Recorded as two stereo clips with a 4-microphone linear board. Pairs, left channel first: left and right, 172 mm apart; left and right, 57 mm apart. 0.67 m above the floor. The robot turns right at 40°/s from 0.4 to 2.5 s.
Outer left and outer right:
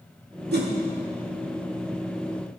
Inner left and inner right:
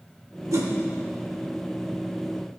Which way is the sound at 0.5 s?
70° right (ahead or behind).